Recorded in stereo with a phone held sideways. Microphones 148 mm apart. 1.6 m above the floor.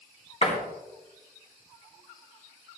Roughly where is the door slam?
Left.